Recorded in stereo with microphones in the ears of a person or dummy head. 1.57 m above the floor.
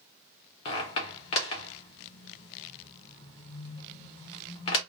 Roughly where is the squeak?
Left.